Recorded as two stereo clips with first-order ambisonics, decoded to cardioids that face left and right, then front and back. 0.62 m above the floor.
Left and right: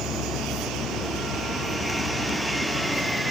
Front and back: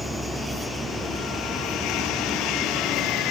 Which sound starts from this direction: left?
An insect, at 0.0 s.